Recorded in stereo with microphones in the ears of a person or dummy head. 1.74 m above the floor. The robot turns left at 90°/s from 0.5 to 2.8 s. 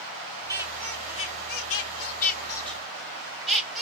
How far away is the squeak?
About 1.9 m.